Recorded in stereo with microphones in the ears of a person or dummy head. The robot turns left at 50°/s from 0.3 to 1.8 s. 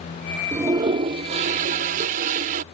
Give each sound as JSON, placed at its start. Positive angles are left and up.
{"t": 0.5, "sound": "a toilet flushing", "azimuth_deg": -30}